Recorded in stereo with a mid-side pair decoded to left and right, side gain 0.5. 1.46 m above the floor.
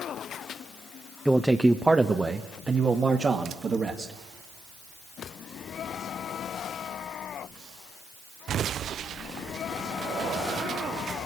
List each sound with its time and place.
1.2 s a man speaking: straight ahead, 1.0 m; by 4.1 s 40° right, 2.5 m